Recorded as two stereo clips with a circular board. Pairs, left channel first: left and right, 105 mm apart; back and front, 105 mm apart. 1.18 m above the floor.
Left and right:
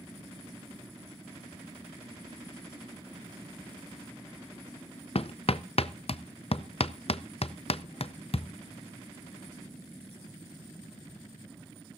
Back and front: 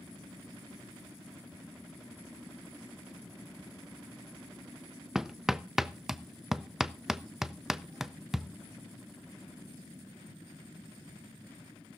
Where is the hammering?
85° left, 0.5 m.